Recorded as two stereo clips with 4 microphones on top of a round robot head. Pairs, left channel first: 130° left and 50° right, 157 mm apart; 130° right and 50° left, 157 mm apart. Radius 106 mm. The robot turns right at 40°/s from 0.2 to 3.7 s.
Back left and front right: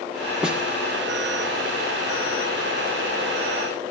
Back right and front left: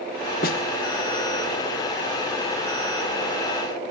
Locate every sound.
0.4 s a snare drum: 135° right, 1.4 m; by 0.6 s 125° right, 1.4 m